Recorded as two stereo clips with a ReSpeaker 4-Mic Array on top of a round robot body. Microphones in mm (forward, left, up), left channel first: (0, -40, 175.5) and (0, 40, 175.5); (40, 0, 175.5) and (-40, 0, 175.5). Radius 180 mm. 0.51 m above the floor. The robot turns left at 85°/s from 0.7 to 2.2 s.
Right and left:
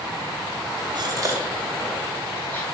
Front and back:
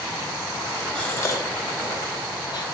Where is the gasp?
75° left, 1.7 m; by 2.6 s 30° right, 1.7 m.